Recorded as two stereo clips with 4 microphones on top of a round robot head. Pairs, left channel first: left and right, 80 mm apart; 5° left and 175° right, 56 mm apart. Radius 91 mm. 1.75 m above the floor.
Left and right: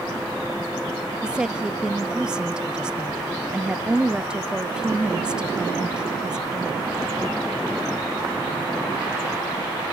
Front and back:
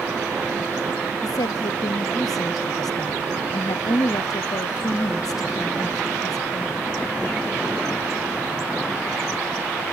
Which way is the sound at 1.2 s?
10° right.